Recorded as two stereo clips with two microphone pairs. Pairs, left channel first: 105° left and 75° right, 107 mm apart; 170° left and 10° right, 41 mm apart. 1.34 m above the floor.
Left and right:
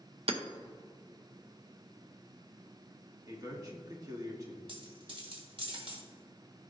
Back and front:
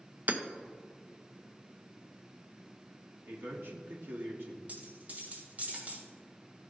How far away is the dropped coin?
About 2.0 m.